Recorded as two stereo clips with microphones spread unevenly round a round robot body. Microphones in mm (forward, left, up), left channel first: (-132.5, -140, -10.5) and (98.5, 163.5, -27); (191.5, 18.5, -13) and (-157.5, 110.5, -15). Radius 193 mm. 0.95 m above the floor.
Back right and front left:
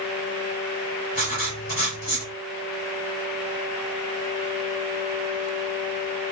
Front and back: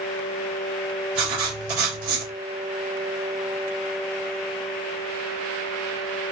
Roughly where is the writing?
Behind.